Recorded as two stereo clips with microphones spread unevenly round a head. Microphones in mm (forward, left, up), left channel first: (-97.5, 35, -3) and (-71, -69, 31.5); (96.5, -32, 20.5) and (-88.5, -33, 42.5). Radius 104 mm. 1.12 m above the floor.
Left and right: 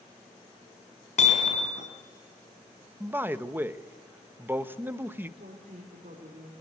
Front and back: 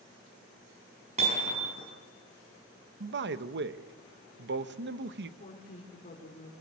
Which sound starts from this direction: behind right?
A man speaking, at 3.0 s.